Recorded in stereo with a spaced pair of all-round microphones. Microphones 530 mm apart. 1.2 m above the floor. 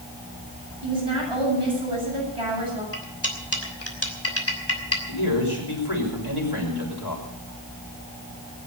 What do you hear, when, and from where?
0.8 s a woman speaking: 85° right, 8.5 m
2.9 s cutlery clinking: 30° left (ahead or behind), 3 m
5.1 s a man speaking: 50° left (ahead or behind), 6 m